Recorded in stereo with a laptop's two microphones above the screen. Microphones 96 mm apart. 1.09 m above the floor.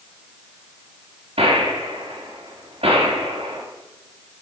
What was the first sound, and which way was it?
A gunshot, 75° right (ahead or behind).